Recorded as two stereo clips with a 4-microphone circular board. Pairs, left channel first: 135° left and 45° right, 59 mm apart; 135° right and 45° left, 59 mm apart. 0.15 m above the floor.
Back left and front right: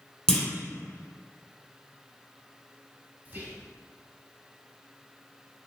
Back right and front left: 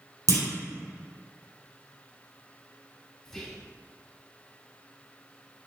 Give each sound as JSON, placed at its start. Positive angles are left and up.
{"t": 0.3, "sound": "a clunk", "azimuth_deg": 55, "distance_m": 1.2}
{"t": 3.2, "sound": "whispering", "azimuth_deg": -60, "distance_m": 1.3}